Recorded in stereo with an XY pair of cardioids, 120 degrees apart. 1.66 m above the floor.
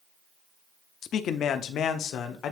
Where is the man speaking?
55° left, 0.7 m; by 2.5 s 70° left, 1.5 m.